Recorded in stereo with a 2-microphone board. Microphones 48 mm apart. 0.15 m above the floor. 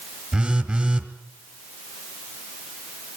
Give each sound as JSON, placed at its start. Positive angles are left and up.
{"t": 0.3, "sound": "a phone buzzing", "side_deg": -25, "distance_m": 1.9}